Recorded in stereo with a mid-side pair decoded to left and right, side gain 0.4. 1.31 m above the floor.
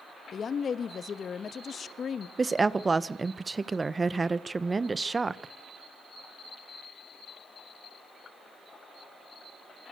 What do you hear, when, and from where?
0.3 s a woman speaking: 50° left, 1.4 m
2.4 s a woman speaking: 30° right, 1.1 m